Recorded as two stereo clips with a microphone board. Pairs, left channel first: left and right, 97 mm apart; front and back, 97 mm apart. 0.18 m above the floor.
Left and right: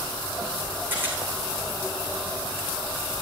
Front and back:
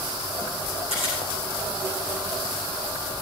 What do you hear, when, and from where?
0.9 s a camera shutter: 20° right, 7.5 m